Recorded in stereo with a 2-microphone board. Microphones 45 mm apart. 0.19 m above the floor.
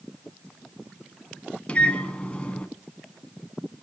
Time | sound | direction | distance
1.7 | a microwave | 25° left (ahead or behind) | 1.7 m